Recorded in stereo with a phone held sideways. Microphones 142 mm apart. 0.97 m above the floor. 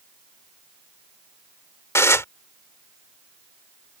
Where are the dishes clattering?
20° left (ahead or behind).